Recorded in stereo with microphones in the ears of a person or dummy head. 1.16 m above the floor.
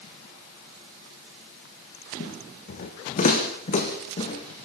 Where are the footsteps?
50° left (ahead or behind), 4.5 m; by 4.7 s 30° left (ahead or behind), 4 m.